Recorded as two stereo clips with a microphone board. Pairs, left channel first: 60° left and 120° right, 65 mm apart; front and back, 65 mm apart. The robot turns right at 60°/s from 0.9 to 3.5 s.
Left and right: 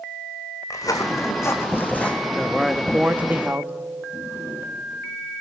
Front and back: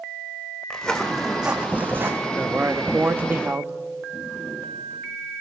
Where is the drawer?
60° left, 7 m.